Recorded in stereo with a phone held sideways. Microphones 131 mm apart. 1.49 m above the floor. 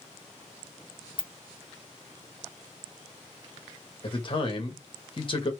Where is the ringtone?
40° left (ahead or behind), 0.5 m.